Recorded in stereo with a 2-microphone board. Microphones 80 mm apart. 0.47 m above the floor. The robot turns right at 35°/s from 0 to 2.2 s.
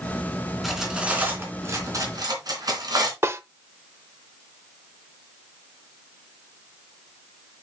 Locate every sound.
0.6 s cutlery clinking: centre (ahead or behind), 3 m; by 3.1 s 55° right (ahead or behind), 3 m
3.2 s a snare drum: 35° right (ahead or behind), 0.7 m